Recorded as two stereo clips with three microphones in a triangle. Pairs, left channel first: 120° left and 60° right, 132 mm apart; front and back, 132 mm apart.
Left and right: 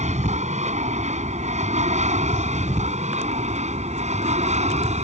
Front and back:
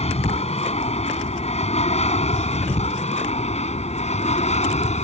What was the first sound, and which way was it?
An aircraft, 35° right.